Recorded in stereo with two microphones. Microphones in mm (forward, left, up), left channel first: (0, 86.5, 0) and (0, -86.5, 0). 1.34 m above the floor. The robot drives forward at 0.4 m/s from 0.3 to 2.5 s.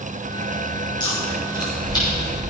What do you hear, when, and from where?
1.0 s chewing: 30° left (ahead or behind), 5.5 m; by 2.4 s 25° left (ahead or behind), 6 m